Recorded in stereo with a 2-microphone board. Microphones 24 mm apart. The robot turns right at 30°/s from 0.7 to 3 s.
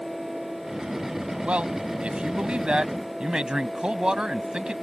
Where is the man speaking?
90° right; by 4.7 s 40° right.